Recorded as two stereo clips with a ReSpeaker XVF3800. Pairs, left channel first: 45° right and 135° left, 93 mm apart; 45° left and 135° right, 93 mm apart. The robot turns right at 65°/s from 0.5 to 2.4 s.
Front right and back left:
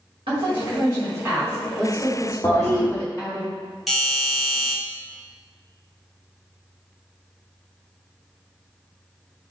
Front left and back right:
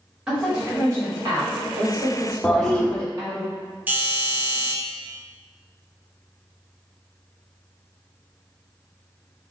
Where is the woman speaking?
150° left, 1.7 m; by 3.4 s 85° right, 1.7 m.